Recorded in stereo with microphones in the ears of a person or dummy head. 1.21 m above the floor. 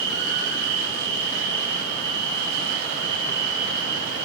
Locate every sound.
0.0 s an insect: 40° left (ahead or behind), 7.5 m